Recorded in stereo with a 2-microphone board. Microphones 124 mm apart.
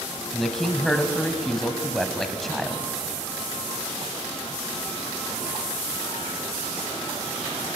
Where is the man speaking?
Centre (ahead or behind), 1.3 m.